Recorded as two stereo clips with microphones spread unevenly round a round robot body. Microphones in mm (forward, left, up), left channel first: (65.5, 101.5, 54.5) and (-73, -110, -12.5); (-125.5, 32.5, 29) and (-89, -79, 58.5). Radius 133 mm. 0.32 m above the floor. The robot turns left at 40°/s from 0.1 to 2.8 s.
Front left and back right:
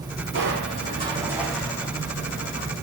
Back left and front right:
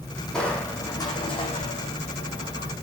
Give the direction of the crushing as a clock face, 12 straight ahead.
6 o'clock.